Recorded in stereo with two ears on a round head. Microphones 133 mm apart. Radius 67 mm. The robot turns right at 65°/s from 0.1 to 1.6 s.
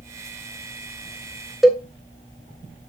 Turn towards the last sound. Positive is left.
turn(degrees=0)  # may be behind; listen again after turning